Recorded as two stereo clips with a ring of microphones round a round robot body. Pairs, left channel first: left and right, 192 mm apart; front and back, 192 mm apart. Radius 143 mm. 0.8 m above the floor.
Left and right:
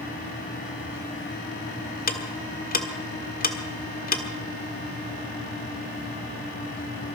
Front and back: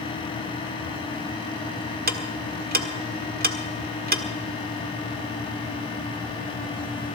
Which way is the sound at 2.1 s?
135° left.